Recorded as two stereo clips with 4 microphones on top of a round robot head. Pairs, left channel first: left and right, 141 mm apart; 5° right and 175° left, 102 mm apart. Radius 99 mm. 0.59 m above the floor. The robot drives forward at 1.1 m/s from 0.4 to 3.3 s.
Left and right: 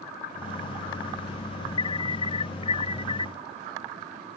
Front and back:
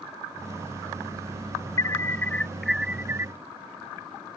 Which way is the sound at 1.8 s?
45° left.